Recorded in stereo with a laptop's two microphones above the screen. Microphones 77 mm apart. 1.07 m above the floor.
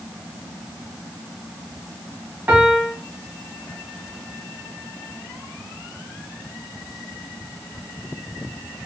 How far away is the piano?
About 0.8 m.